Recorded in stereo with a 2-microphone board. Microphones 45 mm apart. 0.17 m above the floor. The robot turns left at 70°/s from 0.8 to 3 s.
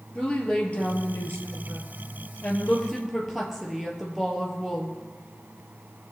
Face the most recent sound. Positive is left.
turn(degrees=-5)